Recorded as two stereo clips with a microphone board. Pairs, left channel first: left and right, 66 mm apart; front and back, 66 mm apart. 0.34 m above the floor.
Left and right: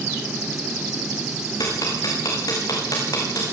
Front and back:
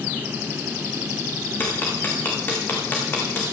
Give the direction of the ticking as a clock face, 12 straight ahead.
10 o'clock.